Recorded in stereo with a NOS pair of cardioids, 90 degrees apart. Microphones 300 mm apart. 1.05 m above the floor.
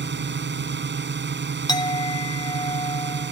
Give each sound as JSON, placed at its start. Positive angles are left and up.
{"t": 0.0, "sound": "a drone", "azimuth_deg": -35}
{"t": 1.7, "sound": "a clink", "azimuth_deg": 10}